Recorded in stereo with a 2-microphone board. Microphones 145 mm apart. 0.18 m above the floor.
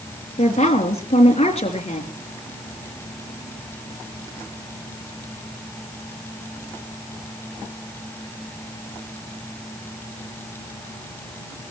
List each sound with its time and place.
0.4 s a woman speaking: 45° left (ahead or behind), 3.5 m